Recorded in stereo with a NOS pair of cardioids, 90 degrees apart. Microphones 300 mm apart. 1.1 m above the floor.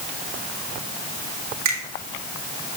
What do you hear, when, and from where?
1.6 s a finger snap: 60° right, 3 m